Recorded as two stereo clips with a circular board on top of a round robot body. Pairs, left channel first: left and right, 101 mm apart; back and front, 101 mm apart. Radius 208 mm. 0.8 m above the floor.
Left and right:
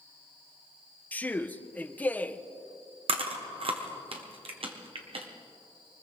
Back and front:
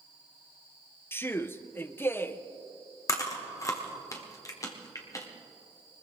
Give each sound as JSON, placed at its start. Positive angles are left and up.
{"t": 1.1, "sound": "a man speaking", "azimuth_deg": 145, "distance_m": 0.9}
{"t": 3.1, "sound": "chewing", "azimuth_deg": -120, "distance_m": 1.3}